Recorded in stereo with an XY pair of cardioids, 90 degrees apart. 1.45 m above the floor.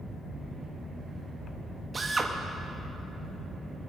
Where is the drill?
35° right, 1.6 m.